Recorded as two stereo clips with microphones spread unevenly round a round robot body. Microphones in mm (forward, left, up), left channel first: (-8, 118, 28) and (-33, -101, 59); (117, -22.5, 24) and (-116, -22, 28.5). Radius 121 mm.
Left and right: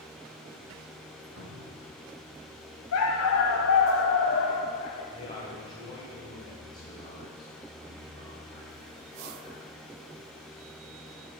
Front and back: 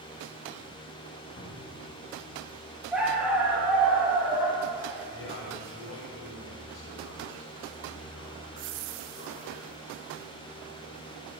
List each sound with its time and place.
1.4 s a cupboard door: 60° right, 2 m
2.9 s a dog barking: 95° left, 1.2 m
5.1 s a man speaking: 20° left, 2.5 m